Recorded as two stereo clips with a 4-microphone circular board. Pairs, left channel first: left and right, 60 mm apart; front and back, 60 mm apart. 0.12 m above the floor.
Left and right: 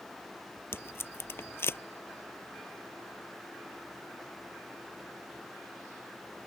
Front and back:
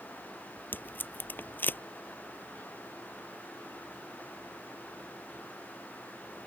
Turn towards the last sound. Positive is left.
turn(degrees=50)